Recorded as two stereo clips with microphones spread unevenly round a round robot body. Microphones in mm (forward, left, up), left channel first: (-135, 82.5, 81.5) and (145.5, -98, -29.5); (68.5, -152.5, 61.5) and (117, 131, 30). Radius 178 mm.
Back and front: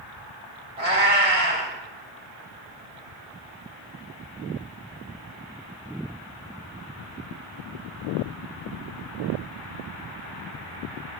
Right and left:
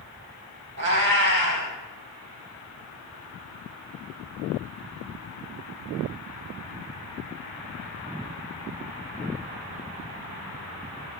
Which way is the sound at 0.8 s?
30° left.